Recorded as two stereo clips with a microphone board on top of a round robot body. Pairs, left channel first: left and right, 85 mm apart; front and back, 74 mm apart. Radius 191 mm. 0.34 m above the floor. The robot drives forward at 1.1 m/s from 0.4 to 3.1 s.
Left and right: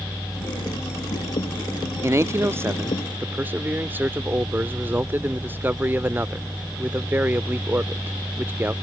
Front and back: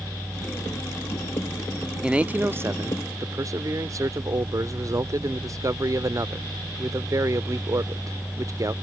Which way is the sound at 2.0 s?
105° right.